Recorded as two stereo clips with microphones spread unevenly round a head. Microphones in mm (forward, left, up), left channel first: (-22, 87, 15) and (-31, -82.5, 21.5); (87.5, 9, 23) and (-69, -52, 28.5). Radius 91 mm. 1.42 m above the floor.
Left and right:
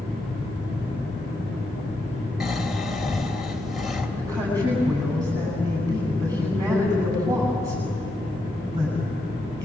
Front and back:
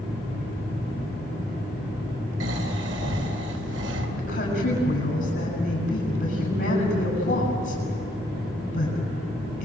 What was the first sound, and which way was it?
Snoring, straight behind.